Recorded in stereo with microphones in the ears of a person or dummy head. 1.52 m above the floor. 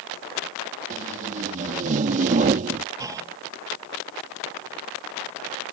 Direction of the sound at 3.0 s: 15° right (ahead or behind).